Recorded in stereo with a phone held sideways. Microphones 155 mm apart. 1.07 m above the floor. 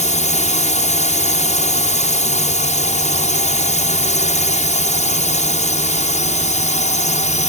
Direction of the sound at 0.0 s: 50° left (ahead or behind).